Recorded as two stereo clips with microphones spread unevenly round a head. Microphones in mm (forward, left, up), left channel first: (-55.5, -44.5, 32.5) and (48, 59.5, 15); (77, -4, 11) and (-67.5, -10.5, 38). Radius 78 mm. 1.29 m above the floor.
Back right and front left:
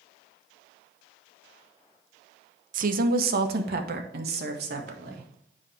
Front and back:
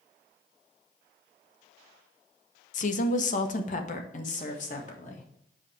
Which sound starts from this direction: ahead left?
A woman speaking, at 2.7 s.